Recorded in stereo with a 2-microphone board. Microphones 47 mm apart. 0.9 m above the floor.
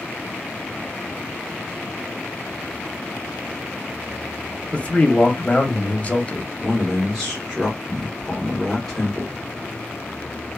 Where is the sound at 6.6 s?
10° right (ahead or behind), 1.2 m.